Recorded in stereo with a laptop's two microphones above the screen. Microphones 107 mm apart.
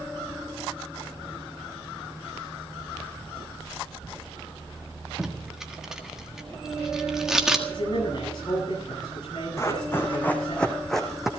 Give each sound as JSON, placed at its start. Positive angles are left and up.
{"t": 5.2, "sound": "tape being pulled", "side_deg": -5, "distance_m": 1.6}
{"t": 7.7, "sound": "a man speaking", "side_deg": 45, "distance_m": 9.5}
{"t": 9.6, "sound": "running footsteps", "side_deg": 25, "distance_m": 2.5}